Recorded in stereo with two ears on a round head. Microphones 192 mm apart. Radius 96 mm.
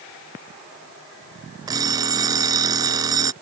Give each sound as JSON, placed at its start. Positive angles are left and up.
{"t": 1.7, "sound": "an alarm clock", "side_deg": -20}